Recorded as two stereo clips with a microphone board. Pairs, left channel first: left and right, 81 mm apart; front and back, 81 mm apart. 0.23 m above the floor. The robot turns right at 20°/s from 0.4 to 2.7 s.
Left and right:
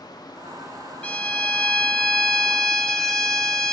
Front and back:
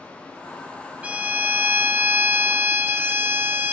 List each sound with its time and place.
1.0 s a violin: 135° left, 0.6 m; by 3.7 s 165° left, 0.6 m